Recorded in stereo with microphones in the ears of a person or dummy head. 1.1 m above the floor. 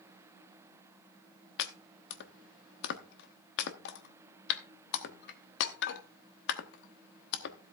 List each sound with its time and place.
1.6 s chopping: 60° left (ahead or behind), 1.0 m